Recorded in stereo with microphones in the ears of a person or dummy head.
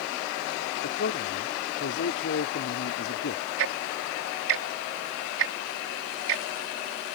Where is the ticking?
80° right.